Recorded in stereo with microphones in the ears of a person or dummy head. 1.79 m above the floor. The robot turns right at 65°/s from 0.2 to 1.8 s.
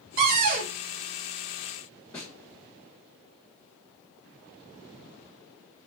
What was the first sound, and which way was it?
A cupboard door, 85° right.